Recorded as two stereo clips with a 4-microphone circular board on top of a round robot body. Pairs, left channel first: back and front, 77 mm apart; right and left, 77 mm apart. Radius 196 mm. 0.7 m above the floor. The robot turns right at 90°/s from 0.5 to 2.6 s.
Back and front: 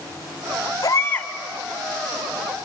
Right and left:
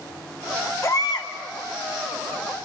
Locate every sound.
0.8 s a baby crying: 140° right, 1.7 m; by 1.3 s 100° right, 1.7 m